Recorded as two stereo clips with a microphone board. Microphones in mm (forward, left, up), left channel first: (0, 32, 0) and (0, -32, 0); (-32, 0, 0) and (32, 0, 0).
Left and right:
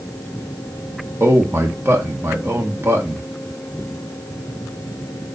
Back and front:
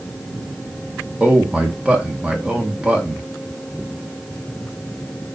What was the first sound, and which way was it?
A man speaking, 70° right.